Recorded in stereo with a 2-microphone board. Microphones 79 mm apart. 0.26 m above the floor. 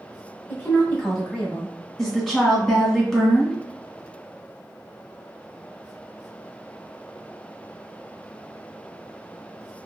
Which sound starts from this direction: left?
A woman speaking, at 0.5 s.